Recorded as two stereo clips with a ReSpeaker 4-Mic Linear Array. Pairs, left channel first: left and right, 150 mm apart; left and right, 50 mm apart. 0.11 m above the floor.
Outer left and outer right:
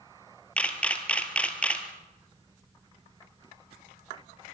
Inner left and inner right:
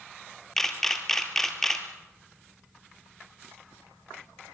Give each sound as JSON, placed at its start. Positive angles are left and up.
{"t": 0.6, "sound": "a camera shutter", "side_deg": 10, "distance_m": 2.0}